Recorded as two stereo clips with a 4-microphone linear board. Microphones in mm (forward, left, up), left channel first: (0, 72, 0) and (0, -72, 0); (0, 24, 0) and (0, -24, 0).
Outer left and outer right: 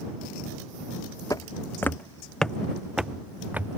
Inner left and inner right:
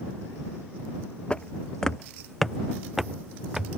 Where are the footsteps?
25° left (ahead or behind); by 3.8 s 15° right (ahead or behind).